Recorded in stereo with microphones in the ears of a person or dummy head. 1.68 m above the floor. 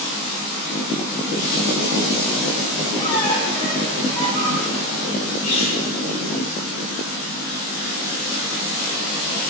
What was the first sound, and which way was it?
A squeak, 25° left (ahead or behind).